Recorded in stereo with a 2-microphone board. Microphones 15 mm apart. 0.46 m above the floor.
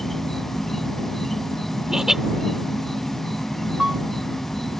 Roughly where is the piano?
Right.